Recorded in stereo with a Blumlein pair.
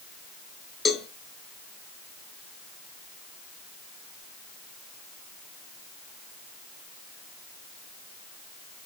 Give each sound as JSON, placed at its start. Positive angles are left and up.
{"t": 0.8, "sound": "a cowbell", "azimuth_deg": 15, "distance_m": 1.0}